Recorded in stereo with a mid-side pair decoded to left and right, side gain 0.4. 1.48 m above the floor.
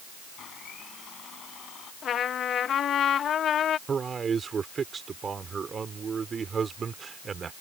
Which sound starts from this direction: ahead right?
A man speaking, at 3.9 s.